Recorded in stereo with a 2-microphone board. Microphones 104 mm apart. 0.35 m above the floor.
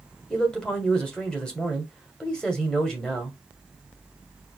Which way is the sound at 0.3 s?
10° left (ahead or behind).